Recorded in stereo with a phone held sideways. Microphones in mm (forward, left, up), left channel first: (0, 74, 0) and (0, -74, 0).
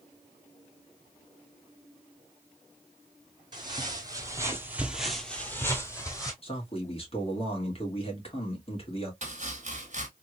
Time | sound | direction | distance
3.5 | footsteps | 30° right (ahead or behind) | 1.5 m
6.4 | a man speaking | 40° left (ahead or behind) | 1.7 m
9.2 | chopping | 55° right (ahead or behind) | 1.2 m